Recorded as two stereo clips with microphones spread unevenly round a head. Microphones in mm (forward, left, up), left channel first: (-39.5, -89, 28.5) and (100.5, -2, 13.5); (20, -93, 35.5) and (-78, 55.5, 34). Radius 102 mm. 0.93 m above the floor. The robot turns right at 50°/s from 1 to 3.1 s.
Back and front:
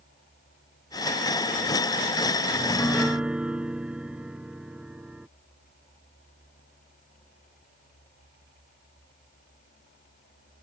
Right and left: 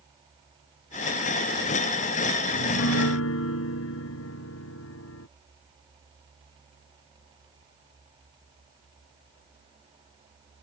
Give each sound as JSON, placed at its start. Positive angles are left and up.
{"t": 2.5, "sound": "a piano", "azimuth_deg": -80}